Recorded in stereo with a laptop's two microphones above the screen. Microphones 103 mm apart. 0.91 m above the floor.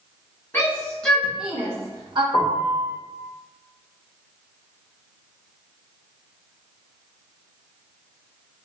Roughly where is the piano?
Left.